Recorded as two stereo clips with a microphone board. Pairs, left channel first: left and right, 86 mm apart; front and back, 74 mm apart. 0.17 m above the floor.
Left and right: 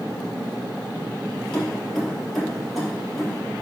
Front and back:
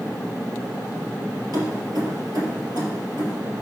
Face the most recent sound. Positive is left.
turn(degrees=-175)